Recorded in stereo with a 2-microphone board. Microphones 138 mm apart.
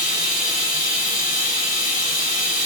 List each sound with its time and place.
0.0 s running water: 65° left (ahead or behind), 1.3 m